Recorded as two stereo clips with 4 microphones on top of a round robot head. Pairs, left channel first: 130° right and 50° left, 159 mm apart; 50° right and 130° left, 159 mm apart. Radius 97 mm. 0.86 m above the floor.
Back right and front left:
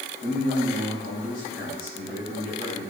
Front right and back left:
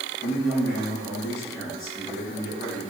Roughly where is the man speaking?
Ahead.